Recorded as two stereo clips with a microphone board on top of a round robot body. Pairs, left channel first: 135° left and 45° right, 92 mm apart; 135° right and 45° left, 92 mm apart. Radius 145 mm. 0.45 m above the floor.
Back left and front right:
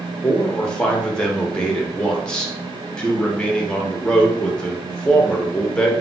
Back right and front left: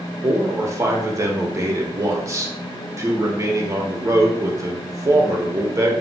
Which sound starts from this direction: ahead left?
A man speaking, at 0.2 s.